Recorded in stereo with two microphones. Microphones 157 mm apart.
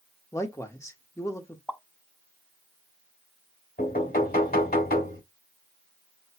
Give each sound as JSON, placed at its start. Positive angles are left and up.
{"t": 0.3, "sound": "a man speaking", "side_deg": 20, "distance_m": 1.2}
{"t": 1.7, "sound": "a pop", "side_deg": 10, "distance_m": 0.7}
{"t": 3.8, "sound": "knocking", "side_deg": 75, "distance_m": 4.0}